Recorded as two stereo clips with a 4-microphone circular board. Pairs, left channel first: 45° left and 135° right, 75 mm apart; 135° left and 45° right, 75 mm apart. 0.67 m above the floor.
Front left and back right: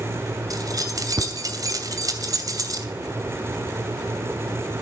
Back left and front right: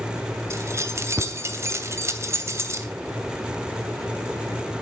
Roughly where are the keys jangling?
Right.